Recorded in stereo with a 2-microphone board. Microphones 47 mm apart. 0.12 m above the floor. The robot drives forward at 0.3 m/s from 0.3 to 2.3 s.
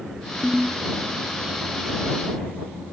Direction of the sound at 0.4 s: 10° right (ahead or behind).